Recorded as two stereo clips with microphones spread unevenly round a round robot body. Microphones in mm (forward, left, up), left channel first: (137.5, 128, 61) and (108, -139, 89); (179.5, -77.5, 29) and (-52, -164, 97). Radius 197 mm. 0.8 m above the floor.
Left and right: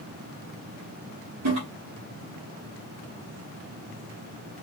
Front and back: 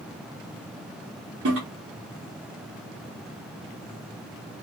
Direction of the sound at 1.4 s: 125° right.